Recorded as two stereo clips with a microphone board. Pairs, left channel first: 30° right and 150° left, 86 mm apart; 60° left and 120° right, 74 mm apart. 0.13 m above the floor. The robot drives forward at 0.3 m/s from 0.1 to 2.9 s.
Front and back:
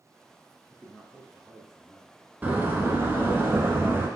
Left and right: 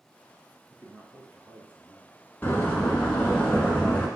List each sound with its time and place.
0.7 s a man speaking: 100° right, 1.1 m; by 2.2 s 140° right, 1.2 m
2.4 s a door slam: 105° left, 0.9 m; by 4.1 s 120° left, 0.9 m